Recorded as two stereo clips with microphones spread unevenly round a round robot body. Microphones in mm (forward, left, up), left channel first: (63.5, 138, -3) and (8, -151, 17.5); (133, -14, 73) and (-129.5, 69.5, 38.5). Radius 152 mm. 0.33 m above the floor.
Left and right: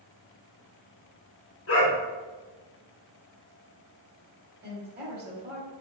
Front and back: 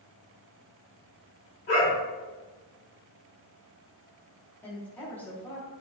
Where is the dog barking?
35° left, 1.8 m.